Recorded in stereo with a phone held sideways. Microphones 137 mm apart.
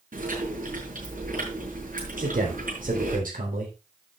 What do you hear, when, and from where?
0.1 s chewing: 85° right, 6 m
2.2 s a man speaking: 75° right (ahead or behind), 4 m